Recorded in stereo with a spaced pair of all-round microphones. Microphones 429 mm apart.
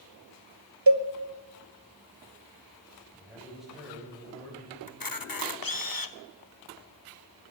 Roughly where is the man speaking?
Centre.